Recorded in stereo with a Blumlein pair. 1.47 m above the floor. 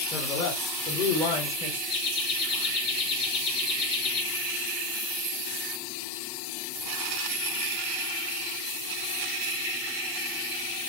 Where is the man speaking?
25° left, 3.5 m; by 1.8 s 30° left, 5.5 m.